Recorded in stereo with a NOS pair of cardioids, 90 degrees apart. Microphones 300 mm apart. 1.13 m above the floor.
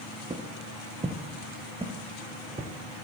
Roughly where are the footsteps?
Ahead.